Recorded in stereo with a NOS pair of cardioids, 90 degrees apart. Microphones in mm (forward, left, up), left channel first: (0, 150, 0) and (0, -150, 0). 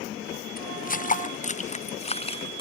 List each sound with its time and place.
0.6 s footsteps: 30° left; by 2.6 s 15° left